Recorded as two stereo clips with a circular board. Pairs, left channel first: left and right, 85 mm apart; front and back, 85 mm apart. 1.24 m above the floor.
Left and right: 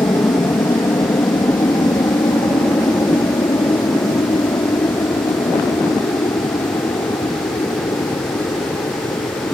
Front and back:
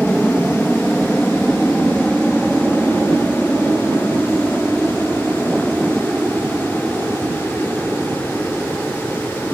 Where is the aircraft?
85° left; by 9.5 s 110° left.